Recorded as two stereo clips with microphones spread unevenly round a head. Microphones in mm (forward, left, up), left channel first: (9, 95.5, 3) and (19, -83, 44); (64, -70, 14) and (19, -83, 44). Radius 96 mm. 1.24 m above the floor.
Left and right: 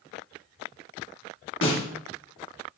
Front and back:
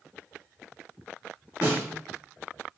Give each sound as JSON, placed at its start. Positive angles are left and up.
{"t": 1.6, "sound": "a snare drum", "azimuth_deg": 75, "distance_m": 5.0}